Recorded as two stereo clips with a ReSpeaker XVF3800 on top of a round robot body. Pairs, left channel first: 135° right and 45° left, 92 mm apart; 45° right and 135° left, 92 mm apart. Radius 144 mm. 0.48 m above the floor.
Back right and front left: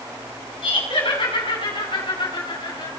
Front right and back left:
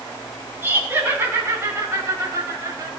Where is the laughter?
160° right, 6 m; by 2.9 s 170° right, 5 m.